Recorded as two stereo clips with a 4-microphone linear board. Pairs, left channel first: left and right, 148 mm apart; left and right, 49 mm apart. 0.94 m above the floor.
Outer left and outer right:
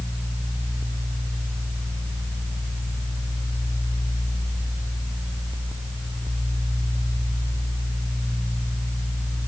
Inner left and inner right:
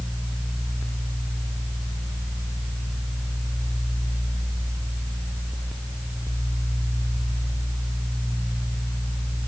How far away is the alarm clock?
I don't hear an alarm clock.